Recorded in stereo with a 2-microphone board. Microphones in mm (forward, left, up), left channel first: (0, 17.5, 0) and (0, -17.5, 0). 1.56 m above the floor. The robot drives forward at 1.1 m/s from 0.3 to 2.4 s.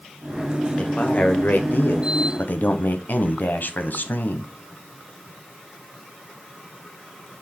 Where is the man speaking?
35° left (ahead or behind), 1.7 m; by 4.5 s 65° left (ahead or behind), 1.1 m.